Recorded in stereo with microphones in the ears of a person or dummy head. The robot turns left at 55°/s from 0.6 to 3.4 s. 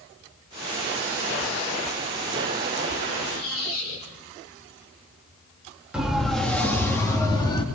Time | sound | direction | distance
3.2 | a squeak | 70° left (ahead or behind) | 7 m
5.9 | a siren | 5° right (ahead or behind) | 2 m